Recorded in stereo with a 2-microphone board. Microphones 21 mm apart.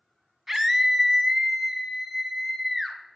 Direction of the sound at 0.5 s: 15° right (ahead or behind).